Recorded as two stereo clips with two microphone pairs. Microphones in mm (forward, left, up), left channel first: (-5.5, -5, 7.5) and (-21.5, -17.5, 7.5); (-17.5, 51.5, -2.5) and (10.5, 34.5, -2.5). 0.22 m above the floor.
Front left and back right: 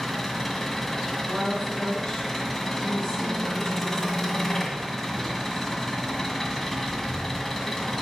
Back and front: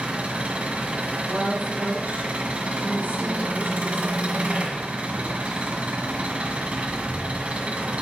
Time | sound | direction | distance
0.0 | an engine running | 10° right | 1.8 m
1.3 | a woman speaking | 10° right | 4 m